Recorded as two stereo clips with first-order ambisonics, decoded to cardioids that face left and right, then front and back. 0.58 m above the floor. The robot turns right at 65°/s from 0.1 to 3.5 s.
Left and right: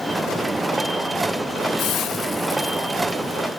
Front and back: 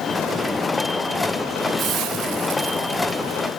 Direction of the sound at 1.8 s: 125° left.